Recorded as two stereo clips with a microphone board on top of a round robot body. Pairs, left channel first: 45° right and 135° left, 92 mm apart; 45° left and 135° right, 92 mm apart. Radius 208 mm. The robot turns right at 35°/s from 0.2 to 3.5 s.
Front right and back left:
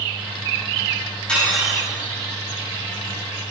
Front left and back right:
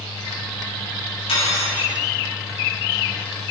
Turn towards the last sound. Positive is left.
turn(degrees=110)